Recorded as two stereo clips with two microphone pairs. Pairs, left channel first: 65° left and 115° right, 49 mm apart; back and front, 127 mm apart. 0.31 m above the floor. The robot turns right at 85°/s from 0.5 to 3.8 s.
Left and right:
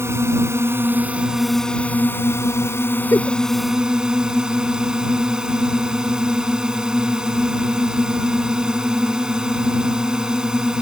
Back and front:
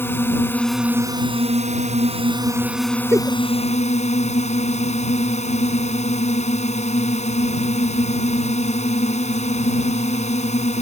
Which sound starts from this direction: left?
A giggle, at 3.1 s.